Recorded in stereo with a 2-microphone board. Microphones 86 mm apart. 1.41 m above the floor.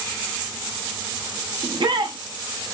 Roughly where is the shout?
Right.